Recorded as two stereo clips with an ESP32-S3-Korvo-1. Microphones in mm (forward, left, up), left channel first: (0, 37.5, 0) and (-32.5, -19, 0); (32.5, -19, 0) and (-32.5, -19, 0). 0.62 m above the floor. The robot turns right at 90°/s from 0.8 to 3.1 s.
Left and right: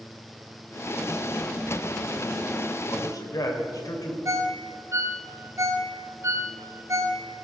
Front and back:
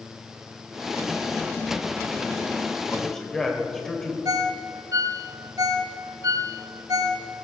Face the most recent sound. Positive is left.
turn(degrees=-160)